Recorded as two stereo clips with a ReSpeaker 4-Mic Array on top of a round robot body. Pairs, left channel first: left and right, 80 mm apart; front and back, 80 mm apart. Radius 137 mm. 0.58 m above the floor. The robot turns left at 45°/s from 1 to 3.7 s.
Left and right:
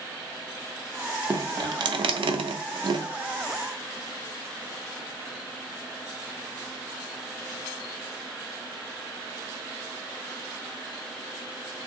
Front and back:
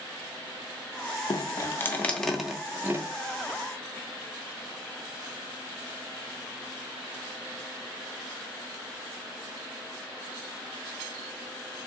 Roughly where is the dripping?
Ahead right.